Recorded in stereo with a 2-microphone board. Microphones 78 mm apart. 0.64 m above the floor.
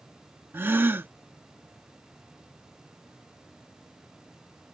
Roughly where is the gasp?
Right.